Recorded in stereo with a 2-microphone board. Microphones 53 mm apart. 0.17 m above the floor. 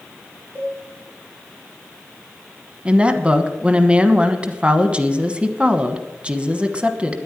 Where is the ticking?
I don't hear ticking.